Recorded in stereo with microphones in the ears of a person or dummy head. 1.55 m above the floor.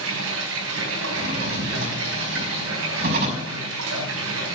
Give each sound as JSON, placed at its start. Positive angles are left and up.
{"t": 0.0, "sound": "running water", "side_deg": -70, "distance_m": 4.0}
{"t": 1.1, "sound": "a drawer", "side_deg": -60, "distance_m": 5.5}